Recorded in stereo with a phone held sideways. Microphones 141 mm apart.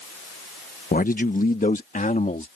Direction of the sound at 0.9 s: 80° left.